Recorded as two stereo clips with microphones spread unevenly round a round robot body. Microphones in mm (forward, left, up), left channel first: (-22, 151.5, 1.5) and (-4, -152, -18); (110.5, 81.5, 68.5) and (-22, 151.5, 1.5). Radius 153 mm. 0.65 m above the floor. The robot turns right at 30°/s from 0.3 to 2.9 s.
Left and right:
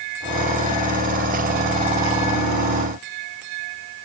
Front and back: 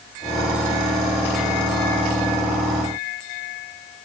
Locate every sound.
Only background noise.